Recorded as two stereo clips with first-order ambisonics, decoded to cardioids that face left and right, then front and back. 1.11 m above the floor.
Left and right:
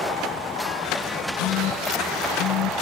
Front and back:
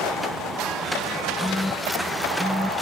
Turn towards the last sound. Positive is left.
turn(degrees=90)